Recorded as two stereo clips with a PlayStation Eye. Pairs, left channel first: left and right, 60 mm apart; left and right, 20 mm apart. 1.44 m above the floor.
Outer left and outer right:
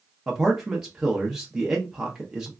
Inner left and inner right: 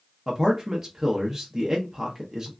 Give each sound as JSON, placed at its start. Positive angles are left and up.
{"t": 0.3, "sound": "a man speaking", "side_deg": -10, "distance_m": 0.6}